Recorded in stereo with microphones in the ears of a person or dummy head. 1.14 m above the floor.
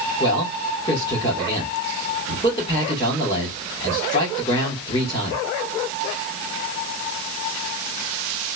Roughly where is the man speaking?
Left.